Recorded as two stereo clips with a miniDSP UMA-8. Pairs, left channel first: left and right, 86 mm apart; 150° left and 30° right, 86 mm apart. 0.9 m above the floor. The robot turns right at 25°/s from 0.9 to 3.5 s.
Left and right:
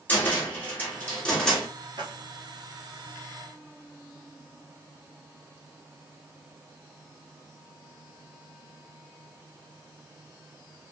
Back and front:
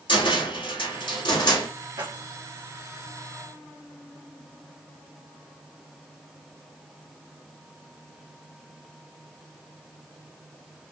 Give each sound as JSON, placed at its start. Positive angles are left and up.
{"t": 0.1, "sound": "a cupboard door", "azimuth_deg": 155, "distance_m": 2.0}
{"t": 2.0, "sound": "keys jangling", "azimuth_deg": -60, "distance_m": 1.5}